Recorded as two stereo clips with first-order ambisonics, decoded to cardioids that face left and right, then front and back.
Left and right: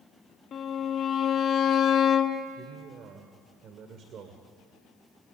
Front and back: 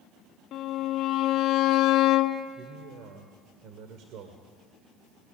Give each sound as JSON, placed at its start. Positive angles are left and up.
{"t": 0.5, "sound": "a violin", "azimuth_deg": 35, "distance_m": 1.0}
{"t": 2.6, "sound": "a man speaking", "azimuth_deg": -145, "distance_m": 2.0}